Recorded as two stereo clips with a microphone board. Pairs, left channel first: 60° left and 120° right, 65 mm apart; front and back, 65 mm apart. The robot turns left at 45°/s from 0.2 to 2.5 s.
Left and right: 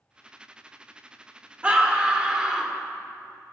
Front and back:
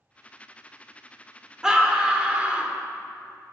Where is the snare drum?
No snare drum in this recording.